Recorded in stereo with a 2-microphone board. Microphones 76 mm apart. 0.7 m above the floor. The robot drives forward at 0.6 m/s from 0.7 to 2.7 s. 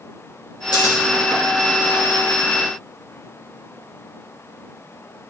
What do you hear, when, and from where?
0.7 s scissors: 70° left (ahead or behind), 3.5 m; by 0.9 s 65° left (ahead or behind), 3.5 m